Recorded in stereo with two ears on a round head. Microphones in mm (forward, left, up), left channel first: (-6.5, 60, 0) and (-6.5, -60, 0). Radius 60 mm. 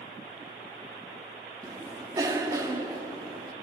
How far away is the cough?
About 1.1 m.